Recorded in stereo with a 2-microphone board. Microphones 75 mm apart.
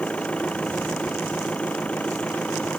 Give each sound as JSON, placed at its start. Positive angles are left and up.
{"t": 0.0, "sound": "an engine running", "side_deg": 15}